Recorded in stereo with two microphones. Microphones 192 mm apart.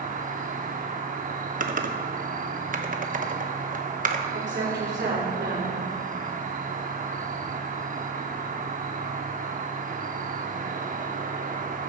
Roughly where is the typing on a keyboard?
Right.